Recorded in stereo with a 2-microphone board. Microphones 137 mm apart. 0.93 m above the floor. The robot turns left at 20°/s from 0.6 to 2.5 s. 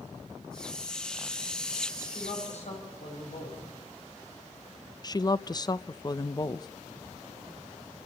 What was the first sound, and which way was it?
A woman speaking, 65° left (ahead or behind).